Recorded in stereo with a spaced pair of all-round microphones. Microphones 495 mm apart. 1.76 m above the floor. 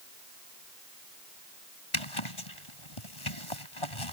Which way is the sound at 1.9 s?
80° left.